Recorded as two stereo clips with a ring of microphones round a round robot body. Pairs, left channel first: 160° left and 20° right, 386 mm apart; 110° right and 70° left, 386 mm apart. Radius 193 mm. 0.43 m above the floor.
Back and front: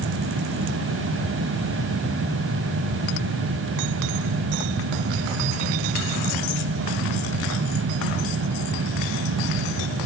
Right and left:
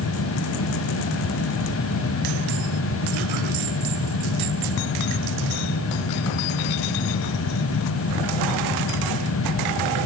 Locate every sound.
Only background noise.